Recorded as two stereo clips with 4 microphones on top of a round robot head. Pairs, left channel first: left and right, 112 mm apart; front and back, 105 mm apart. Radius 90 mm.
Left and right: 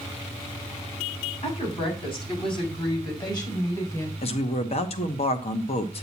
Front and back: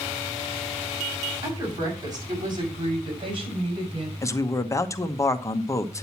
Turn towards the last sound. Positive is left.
turn(degrees=60)